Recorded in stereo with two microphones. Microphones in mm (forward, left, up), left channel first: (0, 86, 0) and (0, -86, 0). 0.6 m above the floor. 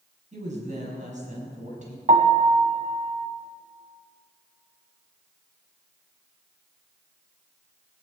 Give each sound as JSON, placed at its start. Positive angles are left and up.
{"t": 0.3, "sound": "a woman speaking", "side_deg": -45, "distance_m": 5.0}
{"t": 2.1, "sound": "a piano", "side_deg": -45, "distance_m": 1.4}